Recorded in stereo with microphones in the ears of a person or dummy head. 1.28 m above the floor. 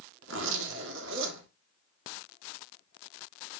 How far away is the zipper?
About 2 m.